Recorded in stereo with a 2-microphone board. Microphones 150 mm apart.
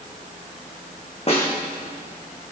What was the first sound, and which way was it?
A snare drum, 40° left (ahead or behind).